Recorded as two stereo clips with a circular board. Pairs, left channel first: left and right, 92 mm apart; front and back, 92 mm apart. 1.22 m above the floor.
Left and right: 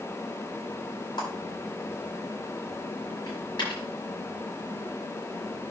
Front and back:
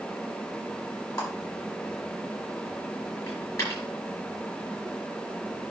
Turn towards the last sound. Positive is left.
turn(degrees=55)